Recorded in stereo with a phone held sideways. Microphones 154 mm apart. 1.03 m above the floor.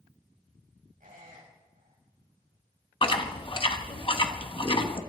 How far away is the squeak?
About 5 m.